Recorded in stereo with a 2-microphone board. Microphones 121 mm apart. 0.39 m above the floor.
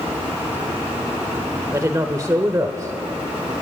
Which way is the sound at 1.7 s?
30° right (ahead or behind).